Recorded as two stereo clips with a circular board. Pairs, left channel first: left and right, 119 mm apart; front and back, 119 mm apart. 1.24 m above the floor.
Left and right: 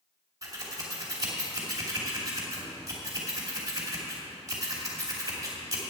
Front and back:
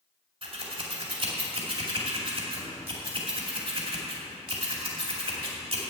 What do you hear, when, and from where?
0.4 s scissors: 150° right, 2.5 m